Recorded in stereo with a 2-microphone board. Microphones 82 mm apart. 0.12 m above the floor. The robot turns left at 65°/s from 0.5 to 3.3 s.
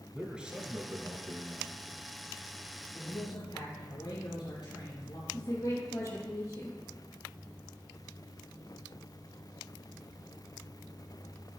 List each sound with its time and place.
0.1 s a man speaking: 15° right, 1.5 m; by 1.8 s 100° right, 1.5 m
2.9 s a man speaking: 50° left (ahead or behind), 4 m; by 5.2 s 65° left (ahead or behind), 4 m
5.3 s a woman speaking: 45° left (ahead or behind), 3.5 m